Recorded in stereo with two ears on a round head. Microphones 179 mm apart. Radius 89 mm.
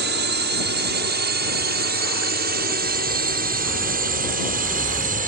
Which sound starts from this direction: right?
A drone, at 0.0 s.